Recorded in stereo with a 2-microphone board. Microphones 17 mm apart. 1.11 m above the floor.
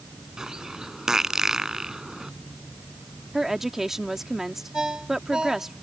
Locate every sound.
0.4 s a bird: 30° right (ahead or behind)
3.3 s a woman speaking: 20° right (ahead or behind)
4.7 s a ringtone: 50° right (ahead or behind)